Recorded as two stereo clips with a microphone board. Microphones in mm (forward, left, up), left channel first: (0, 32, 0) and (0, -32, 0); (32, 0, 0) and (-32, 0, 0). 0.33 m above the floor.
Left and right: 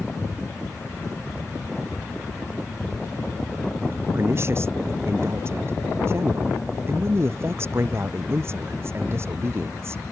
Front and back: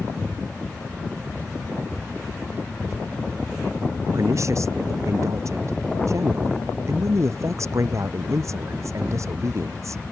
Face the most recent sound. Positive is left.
turn(degrees=-140)